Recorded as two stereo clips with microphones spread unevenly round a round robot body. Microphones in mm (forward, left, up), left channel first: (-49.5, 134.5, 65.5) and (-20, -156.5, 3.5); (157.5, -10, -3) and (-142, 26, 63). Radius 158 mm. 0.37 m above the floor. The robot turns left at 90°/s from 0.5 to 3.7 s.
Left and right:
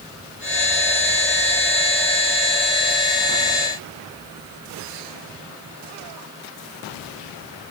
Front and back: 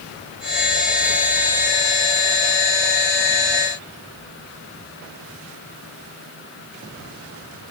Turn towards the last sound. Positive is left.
No sound to turn to.